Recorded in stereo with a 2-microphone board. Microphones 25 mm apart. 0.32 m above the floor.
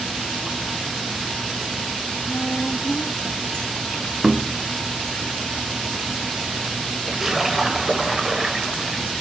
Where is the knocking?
10° right (ahead or behind), 0.9 m.